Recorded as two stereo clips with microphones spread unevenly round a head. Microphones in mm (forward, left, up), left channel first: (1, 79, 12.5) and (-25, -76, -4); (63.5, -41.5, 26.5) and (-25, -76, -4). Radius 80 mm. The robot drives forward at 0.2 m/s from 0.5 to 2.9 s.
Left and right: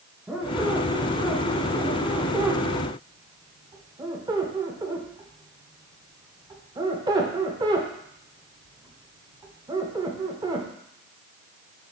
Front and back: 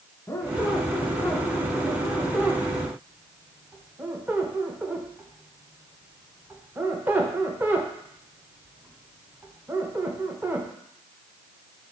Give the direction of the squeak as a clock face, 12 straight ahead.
1 o'clock.